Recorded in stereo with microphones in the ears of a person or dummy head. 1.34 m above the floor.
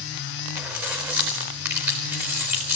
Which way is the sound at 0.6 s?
20° right (ahead or behind).